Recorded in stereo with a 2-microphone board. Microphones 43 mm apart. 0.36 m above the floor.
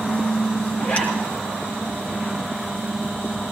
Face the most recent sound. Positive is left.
turn(degrees=30)  # may be behind; listen again after turning